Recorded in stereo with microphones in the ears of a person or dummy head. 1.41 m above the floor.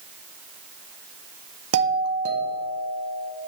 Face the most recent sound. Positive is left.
turn(degrees=-80)